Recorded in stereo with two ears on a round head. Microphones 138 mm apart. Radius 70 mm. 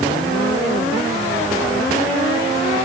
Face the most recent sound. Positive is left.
No sound to turn to.